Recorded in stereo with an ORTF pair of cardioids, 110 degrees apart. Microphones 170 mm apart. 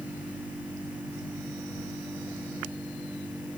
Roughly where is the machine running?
Ahead.